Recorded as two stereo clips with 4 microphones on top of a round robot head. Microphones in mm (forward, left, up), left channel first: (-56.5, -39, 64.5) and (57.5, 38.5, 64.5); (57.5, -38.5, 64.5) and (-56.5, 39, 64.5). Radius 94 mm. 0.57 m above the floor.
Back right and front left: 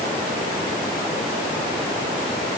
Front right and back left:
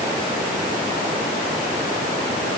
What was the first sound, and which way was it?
Only background noise.